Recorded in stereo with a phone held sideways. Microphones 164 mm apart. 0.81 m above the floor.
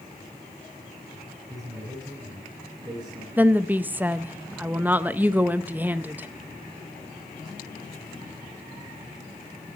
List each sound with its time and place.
1.5 s a man speaking: 20° right (ahead or behind), 9.5 m
3.4 s a woman speaking: 10° right (ahead or behind), 0.5 m